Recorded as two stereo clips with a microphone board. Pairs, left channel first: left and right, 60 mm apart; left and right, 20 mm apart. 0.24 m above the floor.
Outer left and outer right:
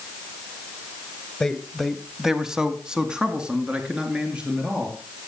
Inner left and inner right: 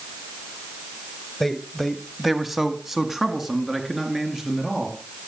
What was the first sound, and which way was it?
A man speaking, 10° left (ahead or behind).